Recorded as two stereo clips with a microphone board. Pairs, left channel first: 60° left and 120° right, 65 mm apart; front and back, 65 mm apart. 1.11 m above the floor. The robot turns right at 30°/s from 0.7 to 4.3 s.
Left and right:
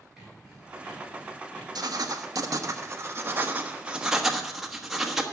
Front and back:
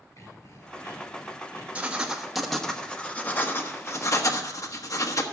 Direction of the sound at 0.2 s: 40° right.